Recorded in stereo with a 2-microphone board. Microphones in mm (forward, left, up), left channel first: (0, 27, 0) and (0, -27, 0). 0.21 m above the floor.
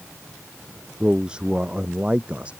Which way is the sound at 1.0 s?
15° right (ahead or behind).